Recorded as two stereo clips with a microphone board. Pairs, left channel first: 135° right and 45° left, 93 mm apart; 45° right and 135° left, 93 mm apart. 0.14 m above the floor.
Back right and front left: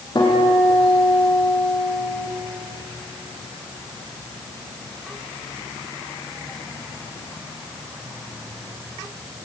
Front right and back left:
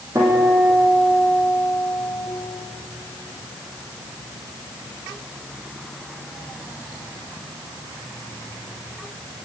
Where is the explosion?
No explosion in this recording.